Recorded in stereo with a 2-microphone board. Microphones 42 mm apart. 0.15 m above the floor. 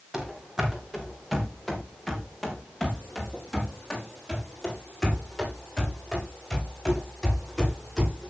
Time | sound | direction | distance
0.1 | running footsteps | 10° right (ahead or behind) | 4 m